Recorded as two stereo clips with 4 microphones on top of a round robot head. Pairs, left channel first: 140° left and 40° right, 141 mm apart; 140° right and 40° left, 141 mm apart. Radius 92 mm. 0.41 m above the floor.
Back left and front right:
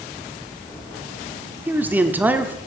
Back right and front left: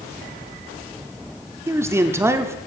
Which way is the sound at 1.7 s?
15° left.